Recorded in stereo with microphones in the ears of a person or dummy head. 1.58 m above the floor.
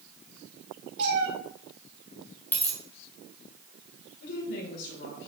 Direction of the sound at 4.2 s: 70° left (ahead or behind).